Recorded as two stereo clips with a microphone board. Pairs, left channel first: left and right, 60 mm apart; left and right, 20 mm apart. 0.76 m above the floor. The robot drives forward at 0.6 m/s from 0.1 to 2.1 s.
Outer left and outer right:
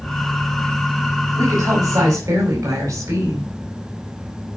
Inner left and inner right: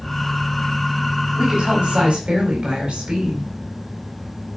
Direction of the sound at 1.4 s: 75° right (ahead or behind).